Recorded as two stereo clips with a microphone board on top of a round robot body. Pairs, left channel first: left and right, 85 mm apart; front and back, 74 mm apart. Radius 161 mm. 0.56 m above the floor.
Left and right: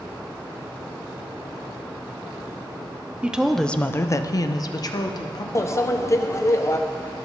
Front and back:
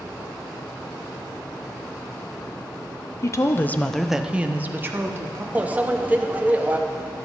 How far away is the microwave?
About 0.8 m.